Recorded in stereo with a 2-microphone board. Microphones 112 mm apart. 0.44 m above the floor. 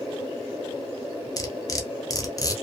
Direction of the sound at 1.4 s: 35° left (ahead or behind).